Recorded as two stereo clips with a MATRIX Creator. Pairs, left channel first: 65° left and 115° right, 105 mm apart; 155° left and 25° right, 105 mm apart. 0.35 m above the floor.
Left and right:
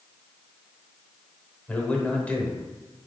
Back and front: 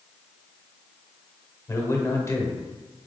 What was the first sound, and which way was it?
A man speaking, 130° left.